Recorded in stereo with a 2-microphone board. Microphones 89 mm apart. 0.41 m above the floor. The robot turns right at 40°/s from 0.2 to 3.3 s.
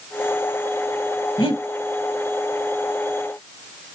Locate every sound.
1.4 s breathing: 80° left, 0.8 m; by 1.6 s 75° left (ahead or behind), 0.8 m